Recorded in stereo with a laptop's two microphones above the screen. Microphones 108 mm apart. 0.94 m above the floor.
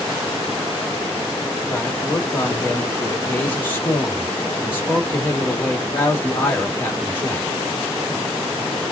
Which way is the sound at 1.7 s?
20° left (ahead or behind).